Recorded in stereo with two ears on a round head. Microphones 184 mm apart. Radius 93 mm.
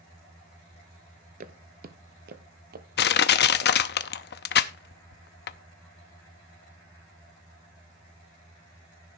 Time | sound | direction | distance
1.4 | footsteps | 40° right (ahead or behind) | 0.9 m
3.0 | crushing | 55° left (ahead or behind) | 0.7 m